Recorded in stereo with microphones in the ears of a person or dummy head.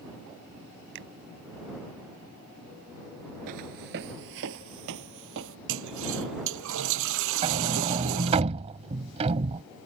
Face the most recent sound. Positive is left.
turn(degrees=-35)  # may be behind; listen again after turning